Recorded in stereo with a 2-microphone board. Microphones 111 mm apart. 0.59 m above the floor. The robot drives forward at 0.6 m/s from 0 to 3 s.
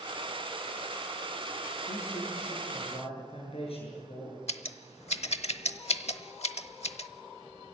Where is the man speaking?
65° left (ahead or behind), 8 m; by 4.4 s 60° left (ahead or behind), 8 m.